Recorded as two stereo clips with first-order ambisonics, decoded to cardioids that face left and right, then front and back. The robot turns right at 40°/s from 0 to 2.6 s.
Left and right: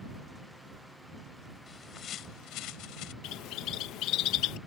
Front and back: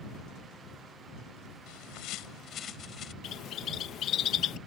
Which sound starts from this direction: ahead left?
A bird, at 3.2 s.